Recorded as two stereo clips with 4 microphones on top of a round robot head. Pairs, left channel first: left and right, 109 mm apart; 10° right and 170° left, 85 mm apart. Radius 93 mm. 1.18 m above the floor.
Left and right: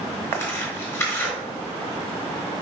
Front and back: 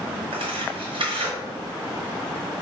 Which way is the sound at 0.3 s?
155° left.